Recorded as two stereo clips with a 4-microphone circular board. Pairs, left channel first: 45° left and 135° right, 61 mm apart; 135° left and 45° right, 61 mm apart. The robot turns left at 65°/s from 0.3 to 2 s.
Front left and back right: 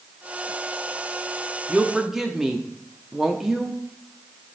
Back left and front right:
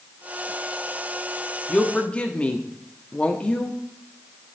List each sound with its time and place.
1.7 s a woman speaking: 175° left, 0.6 m; by 3.8 s 155° left, 0.6 m